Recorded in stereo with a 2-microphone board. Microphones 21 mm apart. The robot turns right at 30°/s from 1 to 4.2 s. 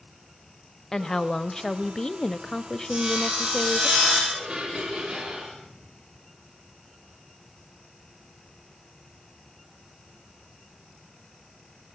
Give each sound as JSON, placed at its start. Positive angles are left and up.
{"t": 0.9, "sound": "a woman speaking", "side_deg": 20, "distance_m": 0.9}
{"t": 2.9, "sound": "sawing", "azimuth_deg": -65, "distance_m": 8.5}
{"t": 4.3, "sound": "dishes clattering", "side_deg": -65, "distance_m": 7.0}